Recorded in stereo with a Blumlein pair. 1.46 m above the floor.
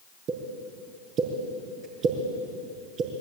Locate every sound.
0.3 s a pop: 35° right, 5.5 m